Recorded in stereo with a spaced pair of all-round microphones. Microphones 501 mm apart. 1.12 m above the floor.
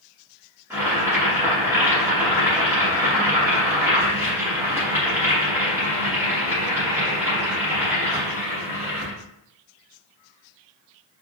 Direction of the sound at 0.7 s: 5° right (ahead or behind).